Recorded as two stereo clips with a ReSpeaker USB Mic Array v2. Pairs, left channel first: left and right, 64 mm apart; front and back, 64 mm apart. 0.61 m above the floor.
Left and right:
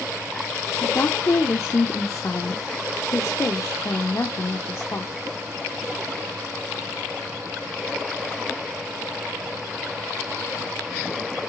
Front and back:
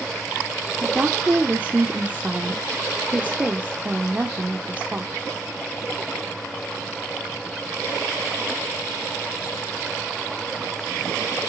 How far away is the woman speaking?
About 1.3 m.